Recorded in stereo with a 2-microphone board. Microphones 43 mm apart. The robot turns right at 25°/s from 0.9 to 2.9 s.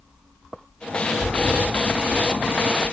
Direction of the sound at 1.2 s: 25° left.